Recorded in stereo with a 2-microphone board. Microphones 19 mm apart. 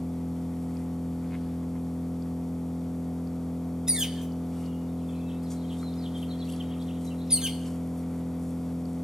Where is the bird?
35° right (ahead or behind), 1.6 m.